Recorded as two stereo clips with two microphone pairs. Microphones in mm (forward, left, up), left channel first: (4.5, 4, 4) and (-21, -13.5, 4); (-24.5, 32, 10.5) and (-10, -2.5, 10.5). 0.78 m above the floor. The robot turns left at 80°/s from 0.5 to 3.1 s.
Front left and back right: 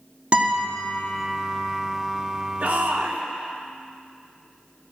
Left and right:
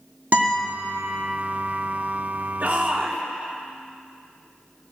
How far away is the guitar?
About 1.6 m.